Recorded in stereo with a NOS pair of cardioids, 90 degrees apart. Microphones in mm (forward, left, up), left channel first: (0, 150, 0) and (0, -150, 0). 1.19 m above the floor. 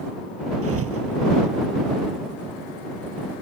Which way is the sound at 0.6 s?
50° right.